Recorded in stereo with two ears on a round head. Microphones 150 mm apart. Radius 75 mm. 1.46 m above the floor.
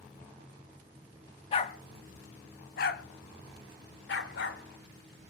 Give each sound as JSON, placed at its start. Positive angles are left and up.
{"t": 1.5, "sound": "a dog barking", "side_deg": 35, "distance_m": 1.2}